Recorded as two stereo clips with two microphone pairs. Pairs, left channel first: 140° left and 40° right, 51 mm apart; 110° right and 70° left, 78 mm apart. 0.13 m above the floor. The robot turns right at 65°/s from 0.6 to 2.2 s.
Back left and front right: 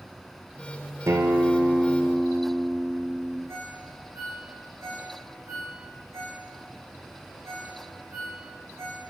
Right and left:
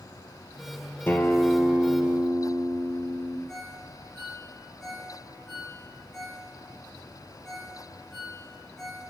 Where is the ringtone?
25° right, 6 m.